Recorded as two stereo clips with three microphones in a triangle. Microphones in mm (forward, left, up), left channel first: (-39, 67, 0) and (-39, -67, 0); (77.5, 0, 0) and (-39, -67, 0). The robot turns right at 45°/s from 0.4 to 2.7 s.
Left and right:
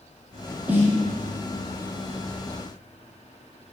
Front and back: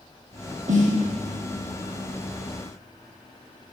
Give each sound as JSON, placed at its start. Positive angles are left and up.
{"t": 0.7, "sound": "a snare drum", "azimuth_deg": -170, "distance_m": 1.8}